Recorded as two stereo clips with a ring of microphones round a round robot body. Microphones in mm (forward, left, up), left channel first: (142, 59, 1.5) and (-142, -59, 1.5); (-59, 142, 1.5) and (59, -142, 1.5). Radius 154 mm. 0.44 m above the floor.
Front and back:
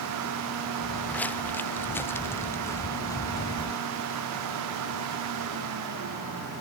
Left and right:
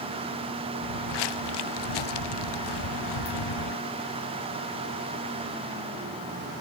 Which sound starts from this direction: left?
Footsteps, at 0.8 s.